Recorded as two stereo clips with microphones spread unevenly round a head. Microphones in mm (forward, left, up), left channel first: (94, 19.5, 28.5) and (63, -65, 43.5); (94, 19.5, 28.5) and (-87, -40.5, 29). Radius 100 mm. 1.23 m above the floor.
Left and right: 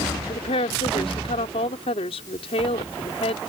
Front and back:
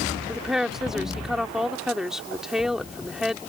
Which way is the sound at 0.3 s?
110° left.